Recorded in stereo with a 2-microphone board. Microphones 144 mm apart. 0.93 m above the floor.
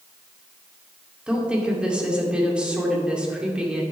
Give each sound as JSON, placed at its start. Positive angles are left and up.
{"t": 1.3, "sound": "a woman speaking", "side_deg": -5, "distance_m": 2.0}